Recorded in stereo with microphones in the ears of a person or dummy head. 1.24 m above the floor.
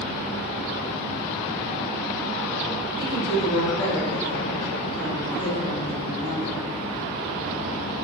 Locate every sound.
3.0 s a woman speaking: 50° left (ahead or behind), 1.5 m